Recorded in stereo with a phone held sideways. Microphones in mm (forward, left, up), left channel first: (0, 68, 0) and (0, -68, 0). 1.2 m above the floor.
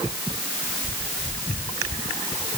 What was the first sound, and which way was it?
Only background noise.